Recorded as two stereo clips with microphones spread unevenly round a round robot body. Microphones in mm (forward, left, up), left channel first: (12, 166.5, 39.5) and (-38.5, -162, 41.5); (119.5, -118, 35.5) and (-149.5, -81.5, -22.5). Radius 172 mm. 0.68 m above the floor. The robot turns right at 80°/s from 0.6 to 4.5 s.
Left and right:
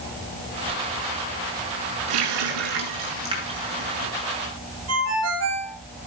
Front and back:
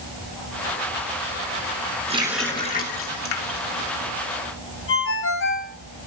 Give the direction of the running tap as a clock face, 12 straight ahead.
4 o'clock.